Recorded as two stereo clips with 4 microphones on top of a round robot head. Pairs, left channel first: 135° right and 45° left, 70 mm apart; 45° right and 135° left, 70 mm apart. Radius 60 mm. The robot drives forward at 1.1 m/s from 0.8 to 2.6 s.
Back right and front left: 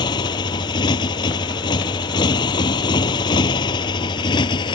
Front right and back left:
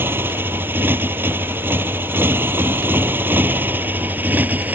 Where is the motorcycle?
160° right; by 4.8 s 155° right.